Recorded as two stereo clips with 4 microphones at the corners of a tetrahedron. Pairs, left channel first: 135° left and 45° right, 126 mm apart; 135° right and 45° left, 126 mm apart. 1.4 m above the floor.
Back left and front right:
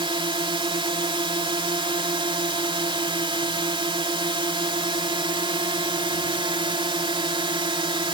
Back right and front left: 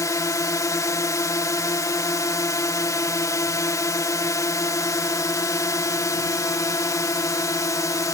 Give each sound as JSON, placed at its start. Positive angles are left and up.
{"t": 0.0, "sound": "a drone", "azimuth_deg": -80}